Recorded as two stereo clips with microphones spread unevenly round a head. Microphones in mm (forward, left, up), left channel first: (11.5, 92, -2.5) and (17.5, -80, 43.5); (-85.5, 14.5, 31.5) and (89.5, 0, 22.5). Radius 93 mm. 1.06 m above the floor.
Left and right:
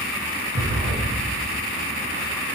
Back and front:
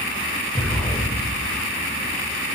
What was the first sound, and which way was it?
An explosion, 105° right.